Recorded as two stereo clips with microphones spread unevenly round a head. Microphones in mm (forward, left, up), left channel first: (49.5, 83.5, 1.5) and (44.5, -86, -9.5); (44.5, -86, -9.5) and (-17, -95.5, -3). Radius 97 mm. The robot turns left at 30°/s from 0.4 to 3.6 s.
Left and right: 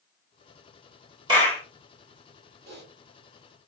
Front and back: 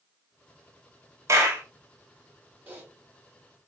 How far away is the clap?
About 1.5 m.